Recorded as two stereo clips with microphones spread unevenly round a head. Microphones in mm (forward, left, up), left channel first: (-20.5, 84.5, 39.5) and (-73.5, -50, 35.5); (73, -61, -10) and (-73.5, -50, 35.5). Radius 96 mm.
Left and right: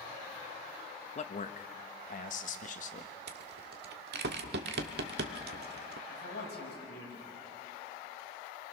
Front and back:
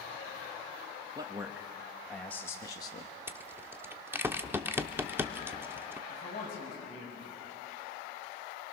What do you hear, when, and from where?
1.1 s a man speaking: 100° left, 1.4 m; by 3.1 s 40° left, 1.5 m
3.3 s a rattle: 110° right, 1.1 m
6.1 s a man speaking: 40° left, 6 m